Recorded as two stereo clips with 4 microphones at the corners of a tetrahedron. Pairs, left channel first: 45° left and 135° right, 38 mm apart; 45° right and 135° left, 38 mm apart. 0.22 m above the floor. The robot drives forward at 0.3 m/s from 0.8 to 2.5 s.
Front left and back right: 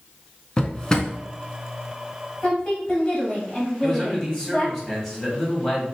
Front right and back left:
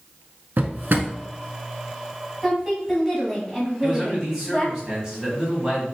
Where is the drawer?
110° left, 0.5 m; by 1.1 s 120° left, 0.6 m.